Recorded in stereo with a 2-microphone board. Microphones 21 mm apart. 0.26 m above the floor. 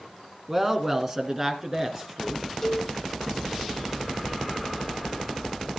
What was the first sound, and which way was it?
A woman speaking, 15° right (ahead or behind).